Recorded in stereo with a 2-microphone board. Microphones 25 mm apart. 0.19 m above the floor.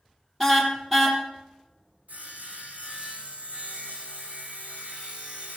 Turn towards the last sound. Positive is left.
turn(degrees=-85)